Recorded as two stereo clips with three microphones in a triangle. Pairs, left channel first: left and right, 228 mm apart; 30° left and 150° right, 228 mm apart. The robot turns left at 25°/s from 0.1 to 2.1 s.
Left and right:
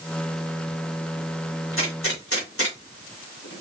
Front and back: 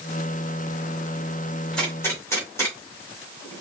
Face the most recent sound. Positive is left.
turn(degrees=110)